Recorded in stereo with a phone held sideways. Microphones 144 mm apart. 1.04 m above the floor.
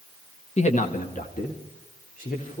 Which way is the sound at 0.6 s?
50° left (ahead or behind).